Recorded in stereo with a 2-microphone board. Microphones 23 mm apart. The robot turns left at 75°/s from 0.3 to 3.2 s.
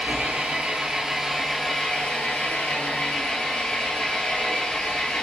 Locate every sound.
0.0 s an engine running: 95° right, 2 m; by 5.2 s 45° left, 2 m